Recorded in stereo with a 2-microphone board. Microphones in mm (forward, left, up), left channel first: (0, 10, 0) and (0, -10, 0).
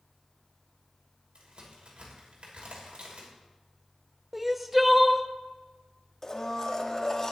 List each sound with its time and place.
1.4 s a crack: 65° right (ahead or behind), 3 m
4.3 s crying: 10° right (ahead or behind), 0.5 m
6.2 s a blender: 25° left (ahead or behind), 1.1 m